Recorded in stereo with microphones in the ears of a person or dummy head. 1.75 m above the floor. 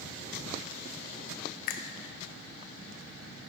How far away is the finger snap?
About 0.5 m.